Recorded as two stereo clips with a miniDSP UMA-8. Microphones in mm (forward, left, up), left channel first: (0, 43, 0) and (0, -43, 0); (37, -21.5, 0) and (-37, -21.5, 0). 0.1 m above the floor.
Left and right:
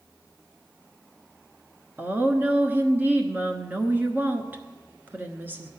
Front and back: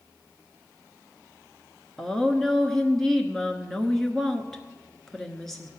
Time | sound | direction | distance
2.0 | a woman speaking | 75° right | 1.1 m